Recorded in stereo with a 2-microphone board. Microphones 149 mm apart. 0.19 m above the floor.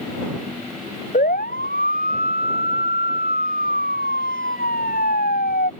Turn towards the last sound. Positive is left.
turn(degrees=80)